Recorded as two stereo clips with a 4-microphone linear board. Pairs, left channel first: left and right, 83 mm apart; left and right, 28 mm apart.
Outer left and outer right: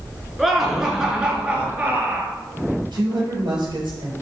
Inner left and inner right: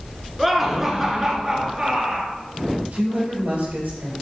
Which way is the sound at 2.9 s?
65° right (ahead or behind).